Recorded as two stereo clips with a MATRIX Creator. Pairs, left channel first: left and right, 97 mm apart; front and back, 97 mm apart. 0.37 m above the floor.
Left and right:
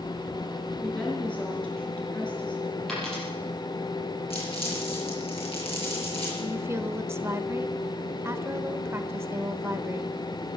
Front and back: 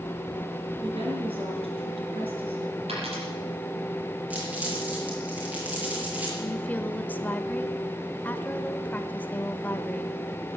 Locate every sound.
0.8 s a woman speaking: 170° left, 4.5 m
2.9 s a dropped coin: 175° left, 5.5 m
4.3 s crumpling: 105° left, 6 m
6.4 s a woman speaking: 55° right, 1.0 m